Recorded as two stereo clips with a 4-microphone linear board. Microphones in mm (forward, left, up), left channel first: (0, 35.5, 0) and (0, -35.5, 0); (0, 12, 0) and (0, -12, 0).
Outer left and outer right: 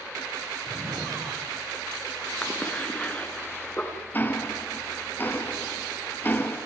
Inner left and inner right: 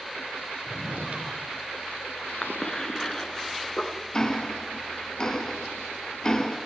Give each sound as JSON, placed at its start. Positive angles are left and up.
{"t": 0.7, "sound": "a drawer", "side_deg": -65, "distance_m": 5.5}
{"t": 2.4, "sound": "a cough", "side_deg": 20, "distance_m": 4.0}
{"t": 4.1, "sound": "ticking", "side_deg": 30, "distance_m": 2.0}